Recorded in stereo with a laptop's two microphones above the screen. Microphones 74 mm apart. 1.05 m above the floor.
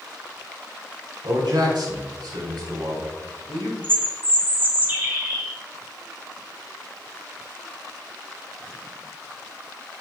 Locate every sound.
1.2 s a man speaking: 80° right, 3 m; by 3.7 s 85° right, 4.5 m
3.8 s a bird: 30° right (ahead or behind), 2.5 m